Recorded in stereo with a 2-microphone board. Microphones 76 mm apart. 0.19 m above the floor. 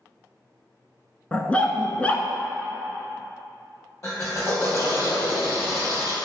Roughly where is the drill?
Left.